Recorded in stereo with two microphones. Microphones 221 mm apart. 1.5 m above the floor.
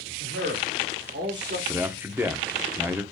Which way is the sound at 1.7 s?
10° right (ahead or behind).